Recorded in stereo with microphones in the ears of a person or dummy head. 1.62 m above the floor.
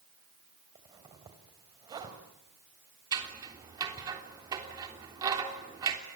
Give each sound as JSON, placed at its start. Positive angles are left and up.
{"t": 0.8, "sound": "a zipper", "side_deg": -25, "distance_m": 3.0}
{"t": 3.1, "sound": "scissors", "side_deg": -20, "distance_m": 3.5}